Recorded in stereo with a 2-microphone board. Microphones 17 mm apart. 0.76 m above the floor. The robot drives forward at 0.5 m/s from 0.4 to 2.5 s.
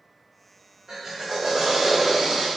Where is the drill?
45° right (ahead or behind), 1.7 m; by 2.5 s 60° right (ahead or behind), 1.4 m.